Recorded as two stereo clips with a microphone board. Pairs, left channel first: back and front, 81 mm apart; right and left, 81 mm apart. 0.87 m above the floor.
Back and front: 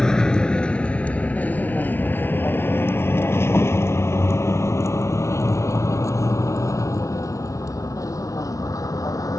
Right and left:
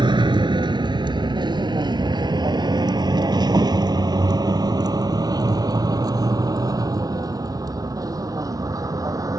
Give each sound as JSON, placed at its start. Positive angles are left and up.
{"t": 0.0, "sound": "a vehicle", "azimuth_deg": 95}